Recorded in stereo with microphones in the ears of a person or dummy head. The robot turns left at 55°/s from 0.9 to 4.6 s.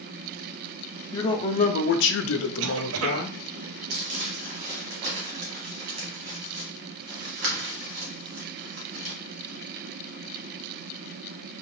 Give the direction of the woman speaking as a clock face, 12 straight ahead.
6 o'clock.